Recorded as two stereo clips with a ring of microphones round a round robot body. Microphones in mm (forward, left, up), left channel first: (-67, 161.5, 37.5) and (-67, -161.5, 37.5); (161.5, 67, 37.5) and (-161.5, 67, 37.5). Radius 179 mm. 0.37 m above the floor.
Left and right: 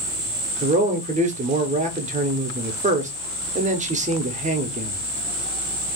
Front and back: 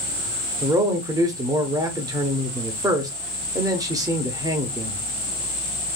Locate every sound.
0.6 s a man speaking: 115° right, 0.8 m